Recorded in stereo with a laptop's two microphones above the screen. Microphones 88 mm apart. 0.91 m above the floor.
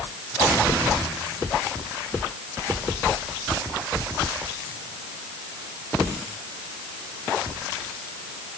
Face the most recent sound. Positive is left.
No sound to turn to.